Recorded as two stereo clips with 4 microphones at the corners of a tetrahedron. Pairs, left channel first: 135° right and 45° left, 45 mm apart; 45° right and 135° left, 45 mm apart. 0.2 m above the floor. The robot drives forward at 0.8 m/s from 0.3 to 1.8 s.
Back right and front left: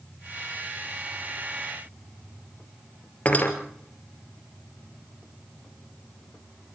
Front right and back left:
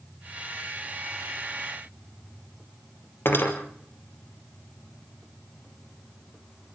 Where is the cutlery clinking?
80° right, 2.5 m.